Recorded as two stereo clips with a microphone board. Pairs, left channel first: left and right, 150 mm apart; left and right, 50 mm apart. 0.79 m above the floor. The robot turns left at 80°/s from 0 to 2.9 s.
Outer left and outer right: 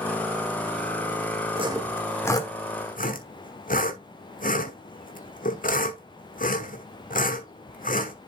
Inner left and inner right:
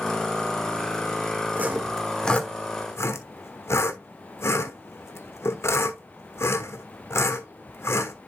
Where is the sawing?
40° right (ahead or behind), 1.2 m; by 8.1 s 65° left (ahead or behind), 1.2 m.